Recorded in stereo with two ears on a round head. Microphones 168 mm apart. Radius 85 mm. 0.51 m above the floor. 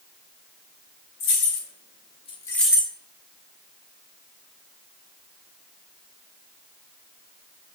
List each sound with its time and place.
1.2 s keys jangling: 65° left (ahead or behind), 1.6 m; by 2.9 s 20° right (ahead or behind), 0.7 m